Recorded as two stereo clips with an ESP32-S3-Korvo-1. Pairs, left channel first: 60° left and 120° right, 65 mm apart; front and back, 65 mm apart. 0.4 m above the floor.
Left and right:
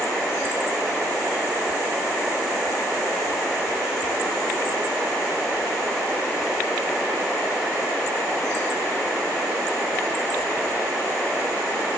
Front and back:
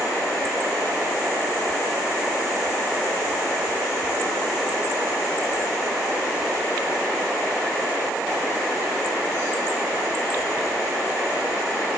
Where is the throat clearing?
I don't hear throat clearing.